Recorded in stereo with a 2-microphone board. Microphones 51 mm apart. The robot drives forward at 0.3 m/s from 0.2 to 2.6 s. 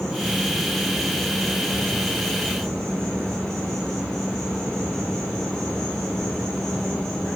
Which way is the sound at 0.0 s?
10° left (ahead or behind).